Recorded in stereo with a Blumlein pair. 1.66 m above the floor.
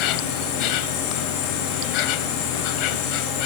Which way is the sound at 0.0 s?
40° left.